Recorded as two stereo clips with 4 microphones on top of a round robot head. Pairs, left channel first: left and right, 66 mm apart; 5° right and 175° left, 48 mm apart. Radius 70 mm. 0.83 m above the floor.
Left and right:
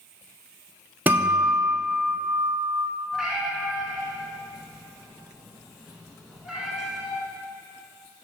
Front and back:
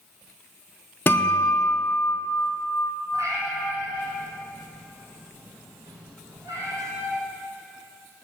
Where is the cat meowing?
175° right, 1.0 m.